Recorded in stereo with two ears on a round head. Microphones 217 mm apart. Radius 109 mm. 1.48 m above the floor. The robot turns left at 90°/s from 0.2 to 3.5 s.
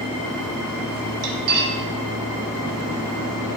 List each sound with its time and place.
1.2 s cutlery clinking: 45° right (ahead or behind), 1.0 m; by 1.8 s 30° right (ahead or behind), 1.0 m